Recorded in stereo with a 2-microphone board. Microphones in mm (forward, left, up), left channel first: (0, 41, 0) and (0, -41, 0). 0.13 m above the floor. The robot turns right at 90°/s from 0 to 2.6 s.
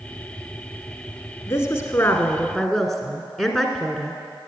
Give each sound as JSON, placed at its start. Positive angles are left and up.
{"t": 1.5, "sound": "a woman speaking", "azimuth_deg": 75, "distance_m": 1.3}